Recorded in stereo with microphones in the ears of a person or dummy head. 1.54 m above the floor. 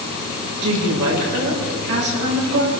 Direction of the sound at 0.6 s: 65° right (ahead or behind).